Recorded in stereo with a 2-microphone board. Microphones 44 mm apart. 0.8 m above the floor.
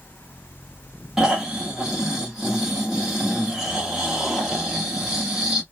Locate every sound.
1.2 s snoring: 15° right (ahead or behind), 1.2 m